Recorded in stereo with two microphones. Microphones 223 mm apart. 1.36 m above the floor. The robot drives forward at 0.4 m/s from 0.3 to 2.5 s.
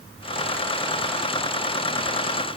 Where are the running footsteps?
No running footsteps in this recording.